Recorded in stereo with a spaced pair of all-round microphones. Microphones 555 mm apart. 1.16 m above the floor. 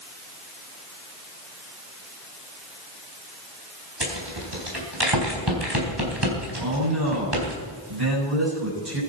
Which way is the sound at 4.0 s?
45° right (ahead or behind).